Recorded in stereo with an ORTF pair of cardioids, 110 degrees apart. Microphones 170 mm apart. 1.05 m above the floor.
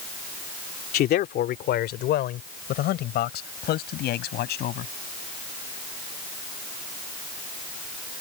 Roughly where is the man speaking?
Left.